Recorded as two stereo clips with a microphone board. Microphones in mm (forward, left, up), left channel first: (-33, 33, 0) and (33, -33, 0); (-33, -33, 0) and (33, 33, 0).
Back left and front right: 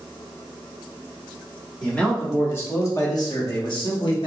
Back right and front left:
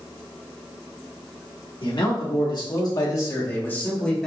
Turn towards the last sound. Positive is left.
turn(degrees=145)